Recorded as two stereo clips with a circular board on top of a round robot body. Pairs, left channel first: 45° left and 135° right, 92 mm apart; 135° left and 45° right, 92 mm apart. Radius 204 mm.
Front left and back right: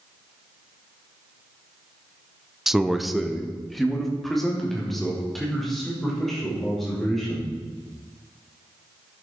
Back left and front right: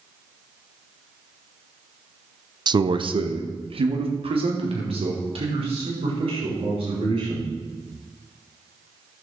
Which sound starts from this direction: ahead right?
A man speaking, at 2.7 s.